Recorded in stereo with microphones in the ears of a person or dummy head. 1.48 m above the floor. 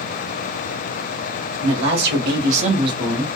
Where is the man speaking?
65° right (ahead or behind), 1.3 m; by 3.4 s centre (ahead or behind), 0.7 m.